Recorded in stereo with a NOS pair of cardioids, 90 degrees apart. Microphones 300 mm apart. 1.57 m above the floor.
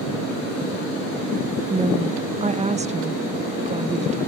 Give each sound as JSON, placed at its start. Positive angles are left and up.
{"t": 1.7, "sound": "a woman speaking", "azimuth_deg": -20}